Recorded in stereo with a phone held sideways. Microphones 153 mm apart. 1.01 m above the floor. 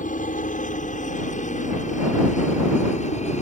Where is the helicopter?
60° left (ahead or behind); by 3.4 s 50° left (ahead or behind).